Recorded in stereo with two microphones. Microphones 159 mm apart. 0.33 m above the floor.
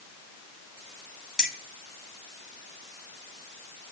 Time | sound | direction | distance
1.4 | keys jangling | 5° right (ahead or behind) | 1.2 m